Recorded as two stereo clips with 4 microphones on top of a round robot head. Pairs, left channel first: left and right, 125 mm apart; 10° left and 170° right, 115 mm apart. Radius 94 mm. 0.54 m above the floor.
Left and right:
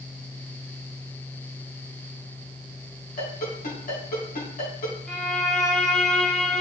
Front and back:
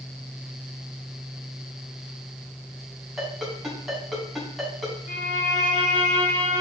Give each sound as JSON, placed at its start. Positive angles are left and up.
{"t": 3.2, "sound": "a ringtone", "azimuth_deg": 100, "distance_m": 3.5}
{"t": 5.1, "sound": "a violin", "azimuth_deg": 0, "distance_m": 2.0}